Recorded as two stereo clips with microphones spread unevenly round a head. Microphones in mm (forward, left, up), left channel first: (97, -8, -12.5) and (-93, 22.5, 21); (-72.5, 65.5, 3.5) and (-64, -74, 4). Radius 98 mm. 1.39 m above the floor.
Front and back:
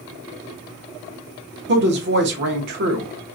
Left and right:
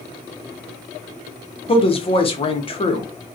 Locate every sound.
1.7 s a woman speaking: 145° left, 0.7 m